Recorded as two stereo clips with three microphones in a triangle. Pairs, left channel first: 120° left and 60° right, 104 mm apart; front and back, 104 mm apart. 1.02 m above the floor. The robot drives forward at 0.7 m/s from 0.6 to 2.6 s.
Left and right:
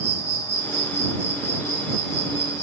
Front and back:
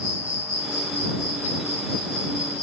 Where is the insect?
175° right, 1.7 m; by 2.6 s straight behind, 3 m.